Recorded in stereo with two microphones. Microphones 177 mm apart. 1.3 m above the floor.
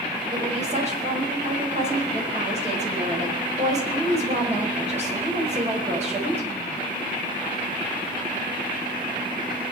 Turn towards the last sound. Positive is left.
turn(degrees=-40)  # may be behind; listen again after turning